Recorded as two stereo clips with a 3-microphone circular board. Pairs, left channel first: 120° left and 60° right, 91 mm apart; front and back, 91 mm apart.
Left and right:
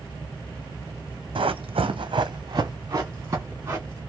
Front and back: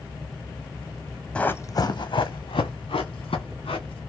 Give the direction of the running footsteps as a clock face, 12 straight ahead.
3 o'clock.